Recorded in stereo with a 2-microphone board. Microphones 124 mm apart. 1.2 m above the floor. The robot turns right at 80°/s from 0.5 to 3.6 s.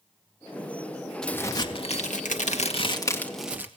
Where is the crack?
5° left, 2 m; by 3.7 s 165° right, 2 m.